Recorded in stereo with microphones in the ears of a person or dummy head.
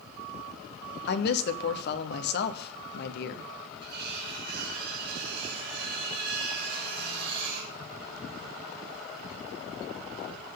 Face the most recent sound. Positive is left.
turn(degrees=-50)  # may be behind; listen again after turning